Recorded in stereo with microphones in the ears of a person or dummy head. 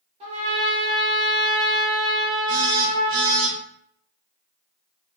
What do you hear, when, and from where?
0.2 s a trumpet: 30° right (ahead or behind), 0.9 m
2.5 s a phone buzzing: 40° right (ahead or behind), 0.8 m